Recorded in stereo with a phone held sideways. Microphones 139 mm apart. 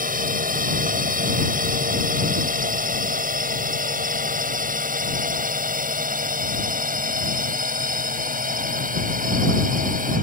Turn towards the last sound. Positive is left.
turn(degrees=-80)